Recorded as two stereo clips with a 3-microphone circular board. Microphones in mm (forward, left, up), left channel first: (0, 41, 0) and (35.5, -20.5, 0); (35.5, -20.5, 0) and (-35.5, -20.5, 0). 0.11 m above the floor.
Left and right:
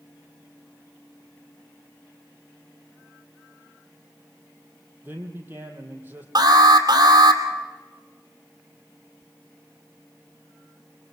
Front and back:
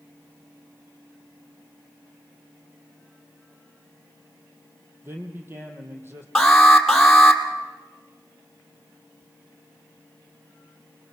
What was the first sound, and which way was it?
A man speaking, 125° right.